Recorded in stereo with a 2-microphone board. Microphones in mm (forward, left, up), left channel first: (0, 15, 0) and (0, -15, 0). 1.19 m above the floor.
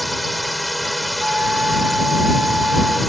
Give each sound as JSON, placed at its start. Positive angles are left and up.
{"t": 0.0, "sound": "a drone", "side_deg": 0}
{"t": 1.2, "sound": "a flute", "side_deg": -55}